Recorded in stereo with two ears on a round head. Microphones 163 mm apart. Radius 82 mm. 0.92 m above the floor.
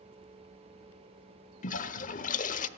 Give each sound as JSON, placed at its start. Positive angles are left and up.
{"t": 1.6, "sound": "a toilet flushing", "side_deg": 45, "distance_m": 1.0}